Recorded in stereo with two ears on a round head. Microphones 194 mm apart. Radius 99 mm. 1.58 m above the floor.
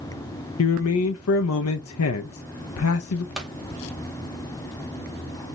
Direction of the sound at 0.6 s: 70° left (ahead or behind).